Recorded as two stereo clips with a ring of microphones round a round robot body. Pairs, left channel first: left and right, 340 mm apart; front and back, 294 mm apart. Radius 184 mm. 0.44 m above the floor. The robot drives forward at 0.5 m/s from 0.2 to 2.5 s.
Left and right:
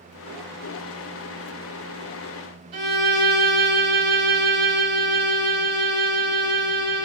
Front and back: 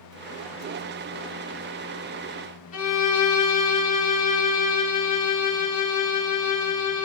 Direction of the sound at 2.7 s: 65° right.